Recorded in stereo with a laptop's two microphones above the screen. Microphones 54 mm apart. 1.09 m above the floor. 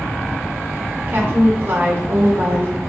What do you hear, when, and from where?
1.1 s a woman speaking: 40° right (ahead or behind), 1.1 m